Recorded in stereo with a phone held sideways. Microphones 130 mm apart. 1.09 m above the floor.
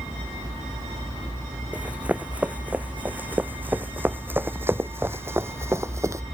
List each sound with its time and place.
1.7 s running footsteps: 10° right (ahead or behind); by 6.2 s 25° right (ahead or behind)